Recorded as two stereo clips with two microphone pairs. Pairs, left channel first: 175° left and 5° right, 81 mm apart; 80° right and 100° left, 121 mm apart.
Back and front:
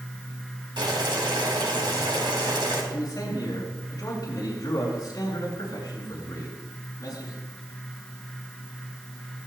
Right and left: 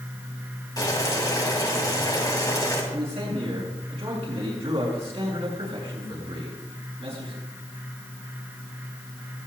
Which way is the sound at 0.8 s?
20° right.